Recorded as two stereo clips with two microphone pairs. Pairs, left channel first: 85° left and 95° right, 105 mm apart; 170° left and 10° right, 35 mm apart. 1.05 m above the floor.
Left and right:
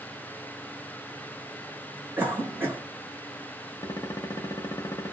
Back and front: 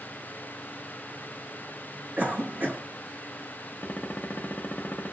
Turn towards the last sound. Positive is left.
turn(degrees=135)